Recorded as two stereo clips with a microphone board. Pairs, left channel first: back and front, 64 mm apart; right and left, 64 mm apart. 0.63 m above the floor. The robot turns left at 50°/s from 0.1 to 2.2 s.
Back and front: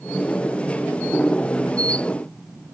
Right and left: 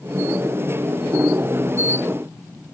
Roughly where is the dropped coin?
No dropped coin in this recording.